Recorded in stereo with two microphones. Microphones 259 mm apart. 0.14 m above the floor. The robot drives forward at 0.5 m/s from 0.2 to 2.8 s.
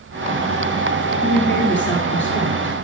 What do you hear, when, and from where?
1.2 s a woman speaking: 45° left (ahead or behind), 2.5 m; by 2.8 s 50° left (ahead or behind), 2 m